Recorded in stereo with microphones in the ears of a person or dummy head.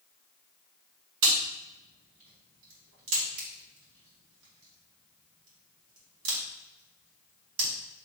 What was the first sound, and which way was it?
A crack, 85° right.